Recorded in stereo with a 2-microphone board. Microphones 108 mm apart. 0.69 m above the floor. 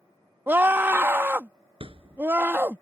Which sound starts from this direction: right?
A thud, at 1.8 s.